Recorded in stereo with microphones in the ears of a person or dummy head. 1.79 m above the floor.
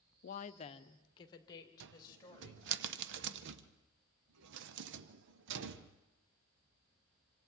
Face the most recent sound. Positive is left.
turn(degrees=-70)  # may be behind; listen again after turning